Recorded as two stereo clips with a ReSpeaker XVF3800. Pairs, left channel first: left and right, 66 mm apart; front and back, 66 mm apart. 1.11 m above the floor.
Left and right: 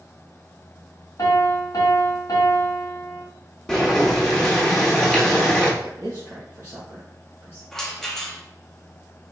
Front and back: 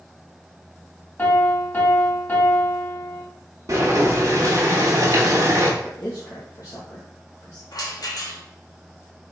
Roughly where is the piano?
Ahead left.